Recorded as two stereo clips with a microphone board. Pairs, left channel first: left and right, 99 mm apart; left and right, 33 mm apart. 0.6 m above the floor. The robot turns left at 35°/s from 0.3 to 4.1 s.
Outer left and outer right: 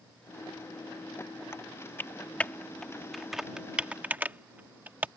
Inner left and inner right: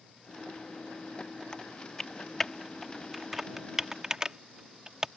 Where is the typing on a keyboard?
25° left (ahead or behind); by 5.1 s 15° right (ahead or behind).